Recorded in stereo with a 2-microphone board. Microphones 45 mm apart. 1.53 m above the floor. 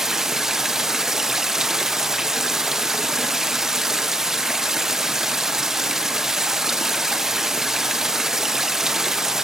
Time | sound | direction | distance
0.0 | running water | 10° right (ahead or behind) | 0.8 m